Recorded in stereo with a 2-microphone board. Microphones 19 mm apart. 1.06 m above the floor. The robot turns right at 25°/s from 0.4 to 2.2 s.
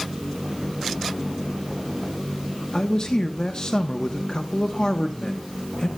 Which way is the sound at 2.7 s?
40° left (ahead or behind).